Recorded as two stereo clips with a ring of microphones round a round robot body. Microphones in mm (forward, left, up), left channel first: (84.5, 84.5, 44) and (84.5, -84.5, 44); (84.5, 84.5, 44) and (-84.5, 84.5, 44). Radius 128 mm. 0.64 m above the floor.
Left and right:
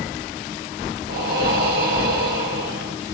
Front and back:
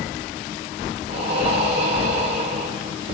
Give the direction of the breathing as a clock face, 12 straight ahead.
4 o'clock.